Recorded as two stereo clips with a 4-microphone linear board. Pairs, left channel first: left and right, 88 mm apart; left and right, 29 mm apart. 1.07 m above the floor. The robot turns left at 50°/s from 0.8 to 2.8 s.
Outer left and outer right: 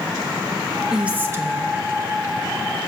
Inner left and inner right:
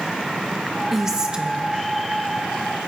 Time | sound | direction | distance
0.9 | a woman speaking | 5° right | 1.3 m